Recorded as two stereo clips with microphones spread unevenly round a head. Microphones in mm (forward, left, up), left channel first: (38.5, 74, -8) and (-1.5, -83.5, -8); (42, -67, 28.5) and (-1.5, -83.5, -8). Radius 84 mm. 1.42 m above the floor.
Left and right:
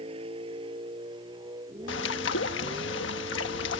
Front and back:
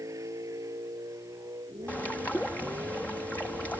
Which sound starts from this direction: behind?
A vehicle, at 0.0 s.